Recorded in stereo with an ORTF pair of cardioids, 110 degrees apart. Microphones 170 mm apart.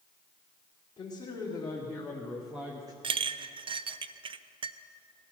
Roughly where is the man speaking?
Ahead left.